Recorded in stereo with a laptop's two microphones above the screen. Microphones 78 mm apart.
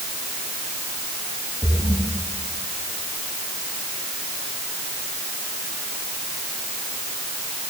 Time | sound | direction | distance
1.6 | a splash | 40° left (ahead or behind) | 10 m